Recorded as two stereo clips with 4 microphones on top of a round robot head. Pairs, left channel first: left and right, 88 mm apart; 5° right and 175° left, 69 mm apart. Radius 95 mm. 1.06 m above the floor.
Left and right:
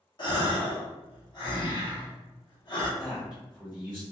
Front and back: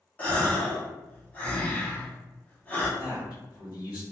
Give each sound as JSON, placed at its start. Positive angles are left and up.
{"t": 0.2, "sound": "a gasp", "azimuth_deg": 60, "distance_m": 1.0}
{"t": 3.0, "sound": "a man speaking", "azimuth_deg": -10, "distance_m": 1.5}